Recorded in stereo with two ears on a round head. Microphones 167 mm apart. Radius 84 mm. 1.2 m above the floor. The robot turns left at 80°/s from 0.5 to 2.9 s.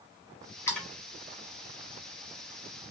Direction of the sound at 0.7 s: 15° left (ahead or behind).